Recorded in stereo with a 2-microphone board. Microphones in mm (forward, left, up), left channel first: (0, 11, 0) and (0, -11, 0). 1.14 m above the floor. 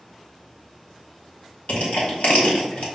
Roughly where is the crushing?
Left.